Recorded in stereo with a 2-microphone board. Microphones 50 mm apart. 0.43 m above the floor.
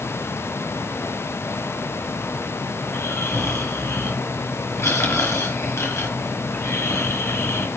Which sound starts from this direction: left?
Snoring, at 2.8 s.